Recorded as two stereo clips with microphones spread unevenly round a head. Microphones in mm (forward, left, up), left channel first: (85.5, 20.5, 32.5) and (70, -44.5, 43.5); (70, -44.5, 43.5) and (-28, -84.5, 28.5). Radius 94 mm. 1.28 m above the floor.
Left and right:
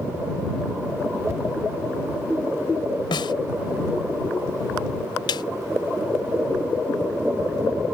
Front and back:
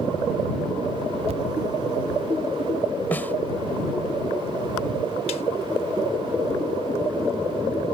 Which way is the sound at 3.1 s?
100° left.